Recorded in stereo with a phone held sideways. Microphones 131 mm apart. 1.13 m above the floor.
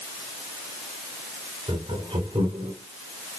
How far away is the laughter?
About 5 m.